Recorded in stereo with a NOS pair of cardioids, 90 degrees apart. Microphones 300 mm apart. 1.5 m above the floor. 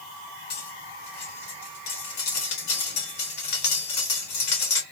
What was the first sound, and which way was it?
Cutlery clinking, 65° left.